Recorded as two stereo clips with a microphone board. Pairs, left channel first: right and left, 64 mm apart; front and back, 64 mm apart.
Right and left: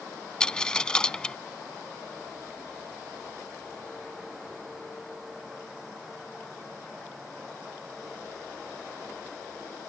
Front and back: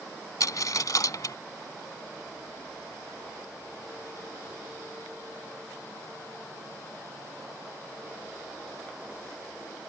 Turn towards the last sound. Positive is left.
turn(degrees=-15)